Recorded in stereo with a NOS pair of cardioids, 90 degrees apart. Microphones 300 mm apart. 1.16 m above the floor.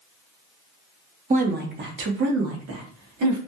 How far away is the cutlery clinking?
No cutlery clinking in this recording.